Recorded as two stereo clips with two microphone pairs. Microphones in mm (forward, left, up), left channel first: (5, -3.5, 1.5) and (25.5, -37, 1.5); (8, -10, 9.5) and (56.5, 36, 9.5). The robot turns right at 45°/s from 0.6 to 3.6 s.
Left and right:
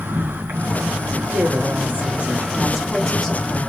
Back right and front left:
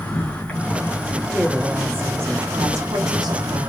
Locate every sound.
0.0 s an insect: 65° right, 3.5 m; by 3.7 s 70° left, 3.5 m
1.3 s a woman speaking: 45° right, 2.5 m; by 3.7 s 60° left, 2.5 m